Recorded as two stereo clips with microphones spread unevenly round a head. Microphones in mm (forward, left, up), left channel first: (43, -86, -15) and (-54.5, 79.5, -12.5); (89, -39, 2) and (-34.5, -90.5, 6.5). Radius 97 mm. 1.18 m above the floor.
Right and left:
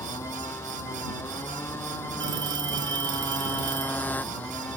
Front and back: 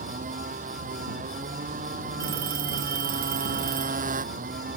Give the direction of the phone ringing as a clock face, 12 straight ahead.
6 o'clock.